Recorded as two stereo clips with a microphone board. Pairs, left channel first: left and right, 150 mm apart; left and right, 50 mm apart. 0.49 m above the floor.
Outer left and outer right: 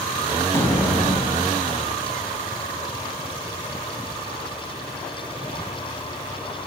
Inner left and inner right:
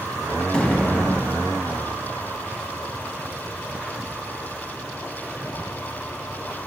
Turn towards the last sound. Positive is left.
turn(degrees=20)  # may be behind; listen again after turning